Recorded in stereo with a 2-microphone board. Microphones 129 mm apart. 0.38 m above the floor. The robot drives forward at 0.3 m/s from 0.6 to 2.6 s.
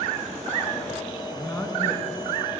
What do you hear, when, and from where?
1.3 s a man speaking: 20° left (ahead or behind), 3.5 m; by 2.6 s 15° left (ahead or behind), 4 m